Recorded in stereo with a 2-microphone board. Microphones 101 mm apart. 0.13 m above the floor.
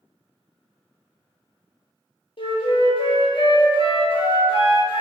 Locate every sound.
2.4 s a flute: 60° left (ahead or behind), 0.6 m